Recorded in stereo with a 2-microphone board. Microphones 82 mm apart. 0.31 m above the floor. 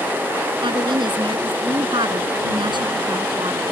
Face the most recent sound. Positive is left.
turn(degrees=-75)  # may be behind; listen again after turning